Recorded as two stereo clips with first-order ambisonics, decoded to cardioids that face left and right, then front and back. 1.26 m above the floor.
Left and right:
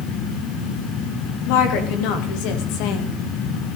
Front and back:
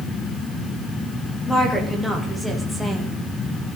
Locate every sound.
1.5 s a woman speaking: 85° left, 3 m; by 3.8 s 95° left, 1.3 m